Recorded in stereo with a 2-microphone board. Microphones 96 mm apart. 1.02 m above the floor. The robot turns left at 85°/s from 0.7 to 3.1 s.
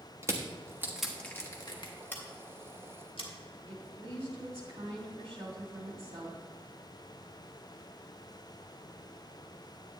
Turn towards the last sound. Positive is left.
turn(degrees=-85)